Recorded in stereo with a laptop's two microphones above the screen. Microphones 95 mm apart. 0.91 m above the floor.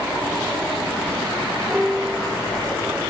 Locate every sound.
1.7 s a piano: 10° right (ahead or behind), 0.8 m